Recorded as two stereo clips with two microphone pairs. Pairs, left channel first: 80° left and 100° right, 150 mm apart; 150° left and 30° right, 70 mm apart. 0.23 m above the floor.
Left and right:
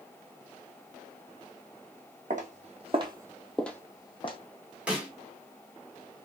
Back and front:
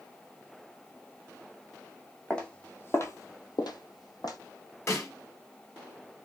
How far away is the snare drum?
About 1.3 m.